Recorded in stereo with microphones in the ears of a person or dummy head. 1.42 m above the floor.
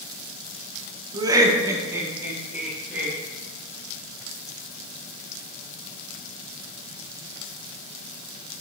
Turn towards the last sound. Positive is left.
turn(degrees=-15)  # may be behind; listen again after turning